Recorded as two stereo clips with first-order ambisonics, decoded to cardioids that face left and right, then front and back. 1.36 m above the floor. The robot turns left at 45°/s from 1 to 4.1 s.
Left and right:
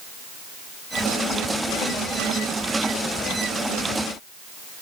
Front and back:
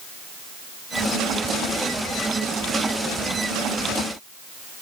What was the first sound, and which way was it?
Only background noise.